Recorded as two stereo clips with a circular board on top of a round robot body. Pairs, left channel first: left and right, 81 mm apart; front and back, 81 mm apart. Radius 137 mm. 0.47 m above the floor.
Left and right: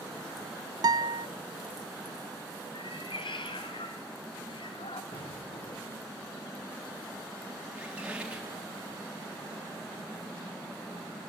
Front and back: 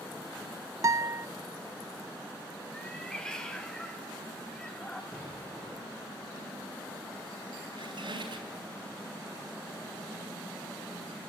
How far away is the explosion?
About 8 m.